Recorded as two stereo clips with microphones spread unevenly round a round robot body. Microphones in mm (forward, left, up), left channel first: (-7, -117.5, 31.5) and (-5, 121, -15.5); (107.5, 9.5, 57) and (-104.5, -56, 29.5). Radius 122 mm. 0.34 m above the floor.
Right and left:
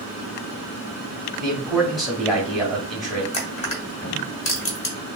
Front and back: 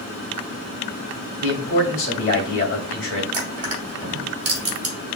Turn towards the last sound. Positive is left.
turn(degrees=-155)